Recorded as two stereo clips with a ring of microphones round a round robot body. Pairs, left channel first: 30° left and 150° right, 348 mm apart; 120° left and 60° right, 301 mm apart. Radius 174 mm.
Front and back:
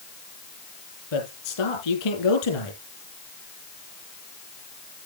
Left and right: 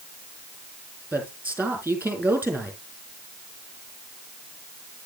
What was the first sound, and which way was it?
A man speaking, 25° left.